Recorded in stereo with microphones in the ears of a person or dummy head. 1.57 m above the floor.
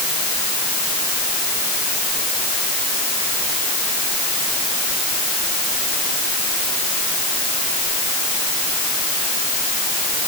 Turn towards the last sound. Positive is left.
No sound to turn to.